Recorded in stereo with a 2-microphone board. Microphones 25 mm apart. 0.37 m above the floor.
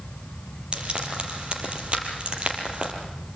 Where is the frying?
50° right (ahead or behind), 5 m.